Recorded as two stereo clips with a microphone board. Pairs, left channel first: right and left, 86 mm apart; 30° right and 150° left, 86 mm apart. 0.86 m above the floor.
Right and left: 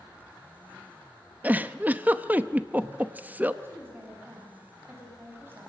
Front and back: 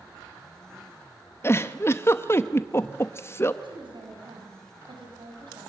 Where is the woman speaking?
155° left, 6.5 m.